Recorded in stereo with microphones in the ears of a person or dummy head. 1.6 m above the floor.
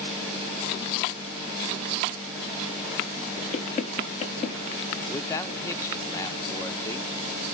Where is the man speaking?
15° left (ahead or behind), 0.8 m.